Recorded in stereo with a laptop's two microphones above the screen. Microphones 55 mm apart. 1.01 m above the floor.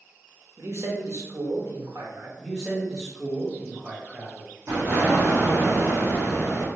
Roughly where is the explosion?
Right.